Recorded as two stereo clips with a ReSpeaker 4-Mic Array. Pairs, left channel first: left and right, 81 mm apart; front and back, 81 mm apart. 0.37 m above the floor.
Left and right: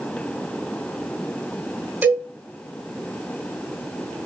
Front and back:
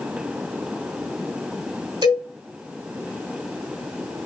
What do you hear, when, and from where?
2.0 s a cowbell: 155° right, 4 m